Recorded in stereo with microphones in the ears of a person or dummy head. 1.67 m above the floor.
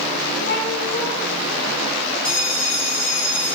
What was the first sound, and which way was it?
A cat meowing, 60° left (ahead or behind).